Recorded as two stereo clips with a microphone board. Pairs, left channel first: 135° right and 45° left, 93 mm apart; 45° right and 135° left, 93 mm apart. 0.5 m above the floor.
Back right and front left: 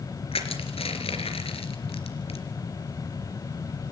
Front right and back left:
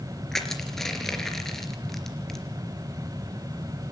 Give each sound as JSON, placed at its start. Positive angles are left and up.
{"t": 0.3, "sound": "crushing", "azimuth_deg": -130, "distance_m": 3.5}